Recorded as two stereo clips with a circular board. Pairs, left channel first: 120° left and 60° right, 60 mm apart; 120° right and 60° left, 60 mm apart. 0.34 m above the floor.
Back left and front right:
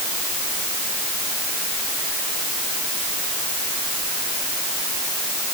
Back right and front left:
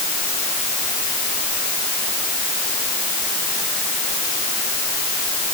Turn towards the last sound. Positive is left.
No sound to turn to.